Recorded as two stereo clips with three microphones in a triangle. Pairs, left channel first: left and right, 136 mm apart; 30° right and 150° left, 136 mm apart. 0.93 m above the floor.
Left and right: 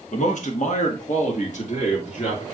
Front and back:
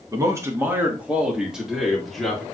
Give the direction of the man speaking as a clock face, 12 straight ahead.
9 o'clock.